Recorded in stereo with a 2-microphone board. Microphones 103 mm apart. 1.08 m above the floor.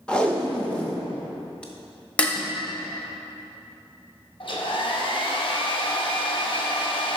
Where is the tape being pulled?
10° left (ahead or behind), 0.7 m.